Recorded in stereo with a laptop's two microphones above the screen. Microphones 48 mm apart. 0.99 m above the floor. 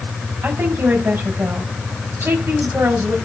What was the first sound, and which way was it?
A woman speaking, 60° right (ahead or behind).